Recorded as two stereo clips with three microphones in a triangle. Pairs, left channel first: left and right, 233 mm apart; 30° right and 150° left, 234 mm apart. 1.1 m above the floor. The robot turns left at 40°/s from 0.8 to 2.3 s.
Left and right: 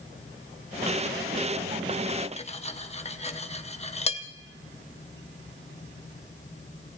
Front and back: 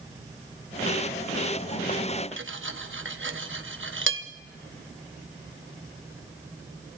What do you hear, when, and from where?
2.4 s cutlery clinking: 145° left, 0.8 m